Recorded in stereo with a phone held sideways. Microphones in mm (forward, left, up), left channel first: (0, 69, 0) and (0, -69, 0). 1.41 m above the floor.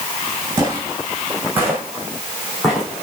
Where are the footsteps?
20° right (ahead or behind), 5.5 m; by 3.0 s 5° left (ahead or behind), 5 m.